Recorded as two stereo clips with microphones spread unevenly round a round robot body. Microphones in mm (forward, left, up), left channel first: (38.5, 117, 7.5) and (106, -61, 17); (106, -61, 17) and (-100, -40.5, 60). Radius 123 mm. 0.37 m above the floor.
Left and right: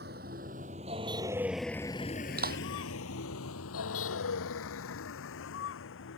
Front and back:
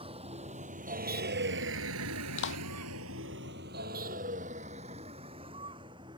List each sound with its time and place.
0.0 s a vehicle: 125° right; by 6.2 s 100° left
2.4 s a clap: 30° right